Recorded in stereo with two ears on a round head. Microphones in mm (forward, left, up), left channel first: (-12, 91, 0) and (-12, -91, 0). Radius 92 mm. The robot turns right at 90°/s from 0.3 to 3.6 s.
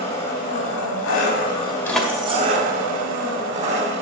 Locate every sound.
0.0 s an engine running: 30° left, 1.7 m; by 4.0 s 30° right, 1.7 m
1.9 s keys jangling: 15° left (ahead or behind), 1.2 m; by 2.5 s 45° right (ahead or behind), 1.2 m